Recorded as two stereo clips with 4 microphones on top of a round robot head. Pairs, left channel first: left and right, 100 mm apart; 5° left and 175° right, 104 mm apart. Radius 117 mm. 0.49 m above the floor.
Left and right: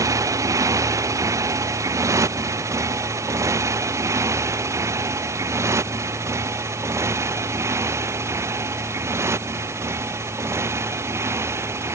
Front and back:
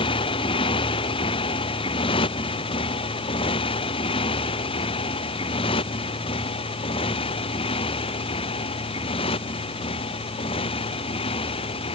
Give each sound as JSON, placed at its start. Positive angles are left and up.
{"t": 0.0, "sound": "a motorcycle", "azimuth_deg": -35}